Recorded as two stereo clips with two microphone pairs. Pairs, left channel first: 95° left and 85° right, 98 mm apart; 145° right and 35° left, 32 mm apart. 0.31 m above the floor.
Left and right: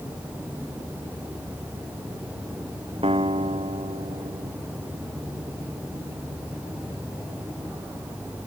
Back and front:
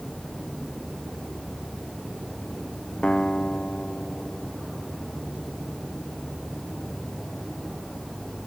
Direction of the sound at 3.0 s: 90° right.